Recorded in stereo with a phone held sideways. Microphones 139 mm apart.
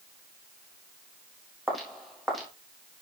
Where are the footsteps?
Centre (ahead or behind), 3.5 m.